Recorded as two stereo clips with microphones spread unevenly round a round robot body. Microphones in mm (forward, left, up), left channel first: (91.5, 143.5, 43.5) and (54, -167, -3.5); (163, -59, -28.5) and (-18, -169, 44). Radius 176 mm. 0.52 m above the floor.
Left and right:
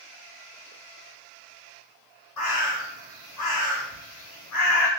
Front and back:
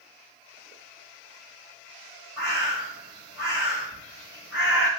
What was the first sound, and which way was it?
A bird, 125° left.